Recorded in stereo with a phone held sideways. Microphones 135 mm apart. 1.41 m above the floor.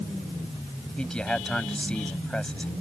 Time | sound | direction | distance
1.0 | a man speaking | 5° left (ahead or behind) | ?